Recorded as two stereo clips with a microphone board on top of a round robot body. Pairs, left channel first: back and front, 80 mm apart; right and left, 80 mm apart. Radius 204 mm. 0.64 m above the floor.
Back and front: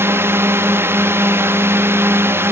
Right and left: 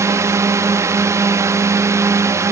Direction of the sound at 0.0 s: 50° left.